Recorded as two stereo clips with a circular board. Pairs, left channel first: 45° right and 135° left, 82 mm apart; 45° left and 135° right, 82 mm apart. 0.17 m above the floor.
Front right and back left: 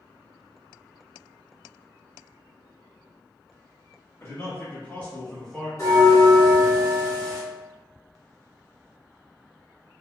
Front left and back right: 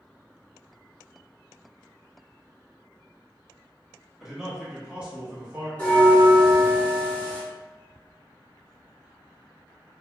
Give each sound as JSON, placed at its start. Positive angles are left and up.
{"t": 4.2, "sound": "a man speaking", "azimuth_deg": -55, "distance_m": 1.6}
{"t": 5.8, "sound": "a bell", "azimuth_deg": -20, "distance_m": 1.3}